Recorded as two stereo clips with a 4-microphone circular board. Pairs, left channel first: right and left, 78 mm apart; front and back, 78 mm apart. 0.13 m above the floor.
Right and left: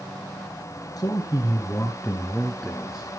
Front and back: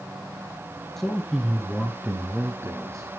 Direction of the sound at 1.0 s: 85° right.